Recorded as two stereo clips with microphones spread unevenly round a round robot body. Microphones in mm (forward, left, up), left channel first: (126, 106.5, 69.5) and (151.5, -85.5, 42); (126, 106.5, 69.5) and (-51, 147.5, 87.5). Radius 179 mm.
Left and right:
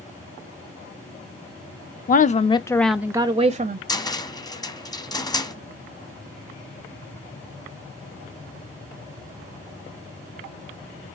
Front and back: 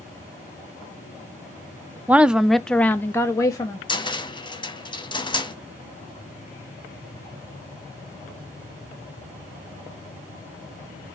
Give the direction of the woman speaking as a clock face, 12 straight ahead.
9 o'clock.